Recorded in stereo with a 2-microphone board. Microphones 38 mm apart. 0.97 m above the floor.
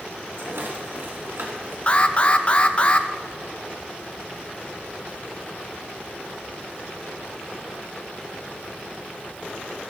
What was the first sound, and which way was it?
A rattle, 75° right (ahead or behind).